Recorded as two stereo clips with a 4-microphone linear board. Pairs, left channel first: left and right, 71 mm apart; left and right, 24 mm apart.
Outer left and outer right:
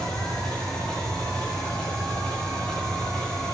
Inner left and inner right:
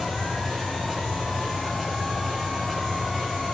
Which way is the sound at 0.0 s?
15° left (ahead or behind).